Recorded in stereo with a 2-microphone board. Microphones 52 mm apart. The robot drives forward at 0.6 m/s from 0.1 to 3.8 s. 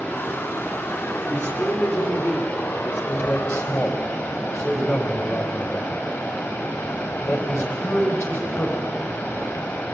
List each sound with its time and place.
0.0 s running water: 35° left (ahead or behind), 5.5 m; by 9.9 s 55° left (ahead or behind), 4 m
1.3 s a man speaking: 45° left (ahead or behind), 5.5 m; by 8.9 s 55° left (ahead or behind), 4.5 m